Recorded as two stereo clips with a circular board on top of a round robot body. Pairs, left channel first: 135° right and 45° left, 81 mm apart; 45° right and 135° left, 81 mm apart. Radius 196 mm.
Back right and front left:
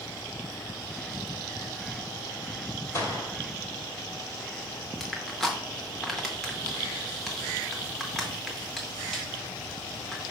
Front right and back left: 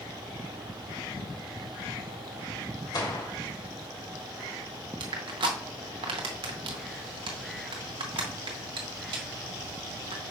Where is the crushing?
140° left, 0.6 m.